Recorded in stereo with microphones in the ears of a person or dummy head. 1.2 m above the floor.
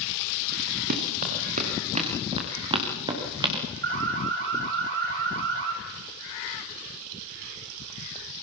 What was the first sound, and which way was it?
Running footsteps, 50° right (ahead or behind).